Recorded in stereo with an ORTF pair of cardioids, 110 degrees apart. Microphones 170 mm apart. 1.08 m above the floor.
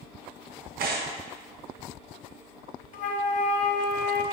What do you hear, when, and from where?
0.8 s tearing paper: 60° right, 1.1 m
2.9 s a flute: 50° left, 0.8 m